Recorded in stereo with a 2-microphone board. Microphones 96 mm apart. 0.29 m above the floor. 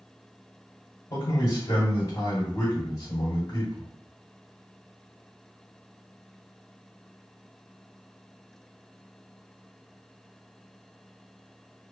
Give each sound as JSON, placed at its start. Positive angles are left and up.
{"t": 1.1, "sound": "a man speaking", "side_deg": 35, "distance_m": 1.7}